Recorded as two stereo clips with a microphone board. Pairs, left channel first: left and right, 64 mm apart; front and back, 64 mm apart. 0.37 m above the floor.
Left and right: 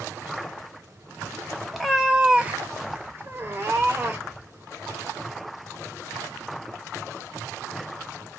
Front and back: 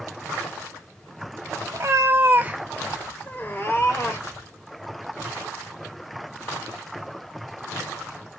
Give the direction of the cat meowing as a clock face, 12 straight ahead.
6 o'clock.